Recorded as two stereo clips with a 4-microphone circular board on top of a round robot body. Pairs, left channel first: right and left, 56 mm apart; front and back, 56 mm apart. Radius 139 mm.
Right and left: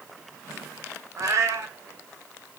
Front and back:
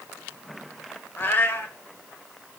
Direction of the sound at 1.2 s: 60° left.